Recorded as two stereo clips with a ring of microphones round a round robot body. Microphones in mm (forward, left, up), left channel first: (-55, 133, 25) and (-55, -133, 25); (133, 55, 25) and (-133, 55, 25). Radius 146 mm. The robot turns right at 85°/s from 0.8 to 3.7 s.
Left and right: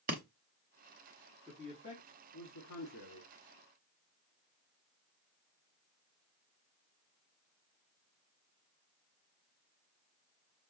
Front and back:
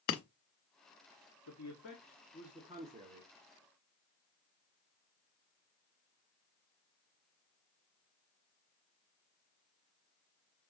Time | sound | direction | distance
0.1 | breaking glass | 25° right | 0.8 m
1.5 | a man speaking | 5° right | 1.6 m